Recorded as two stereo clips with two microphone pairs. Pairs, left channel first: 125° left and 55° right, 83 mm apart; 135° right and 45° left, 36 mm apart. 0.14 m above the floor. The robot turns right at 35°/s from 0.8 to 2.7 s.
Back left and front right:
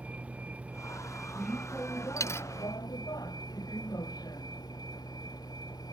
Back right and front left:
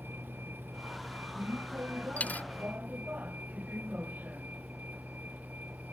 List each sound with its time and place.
0.0 s a vehicle: 20° left; by 5.9 s 85° left
2.2 s a dropped coin: 175° left; by 2.5 s 175° right